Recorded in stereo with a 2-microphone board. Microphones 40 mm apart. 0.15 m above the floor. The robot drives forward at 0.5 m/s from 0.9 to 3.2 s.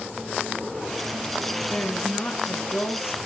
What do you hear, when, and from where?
1.7 s a woman speaking: 50° left (ahead or behind), 2.0 m; by 3.2 s 55° left (ahead or behind), 1.9 m